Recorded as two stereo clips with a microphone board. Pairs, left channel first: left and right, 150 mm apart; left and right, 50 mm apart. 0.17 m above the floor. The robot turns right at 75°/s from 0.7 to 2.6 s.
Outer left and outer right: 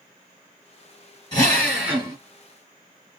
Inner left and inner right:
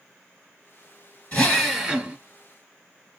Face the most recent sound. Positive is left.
turn(degrees=-115)